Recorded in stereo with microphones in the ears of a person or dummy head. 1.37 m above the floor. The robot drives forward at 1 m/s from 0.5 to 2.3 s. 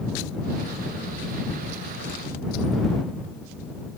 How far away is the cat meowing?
I don't hear a cat meowing.